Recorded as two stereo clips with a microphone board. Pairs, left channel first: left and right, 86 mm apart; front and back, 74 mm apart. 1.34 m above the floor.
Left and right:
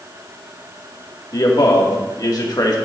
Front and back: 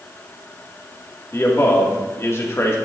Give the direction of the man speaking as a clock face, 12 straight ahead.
10 o'clock.